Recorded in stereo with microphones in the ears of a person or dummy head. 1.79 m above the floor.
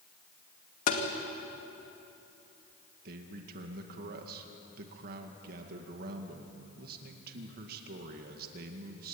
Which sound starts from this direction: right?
A man speaking, at 3.0 s.